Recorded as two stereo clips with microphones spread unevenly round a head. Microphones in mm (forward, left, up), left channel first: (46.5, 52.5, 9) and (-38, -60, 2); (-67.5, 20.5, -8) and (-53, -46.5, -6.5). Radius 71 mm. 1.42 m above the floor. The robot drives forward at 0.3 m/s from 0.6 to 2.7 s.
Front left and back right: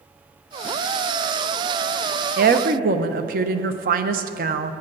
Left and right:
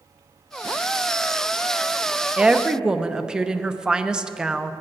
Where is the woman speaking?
150° right, 0.6 m; by 4.7 s 155° right, 0.7 m.